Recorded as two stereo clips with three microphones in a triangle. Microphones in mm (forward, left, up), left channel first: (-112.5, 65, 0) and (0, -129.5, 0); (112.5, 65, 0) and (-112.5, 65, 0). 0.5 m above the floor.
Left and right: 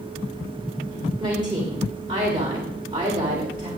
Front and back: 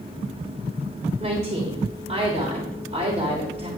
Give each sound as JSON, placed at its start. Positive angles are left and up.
{"t": 1.2, "sound": "a woman speaking", "azimuth_deg": -125, "distance_m": 1.9}